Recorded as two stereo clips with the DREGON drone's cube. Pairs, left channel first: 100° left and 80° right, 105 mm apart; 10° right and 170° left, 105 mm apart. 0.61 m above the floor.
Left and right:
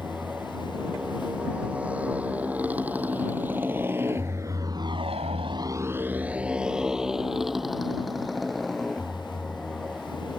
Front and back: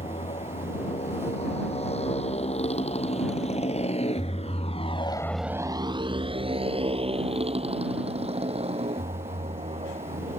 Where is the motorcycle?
Straight ahead; by 10.4 s 170° right.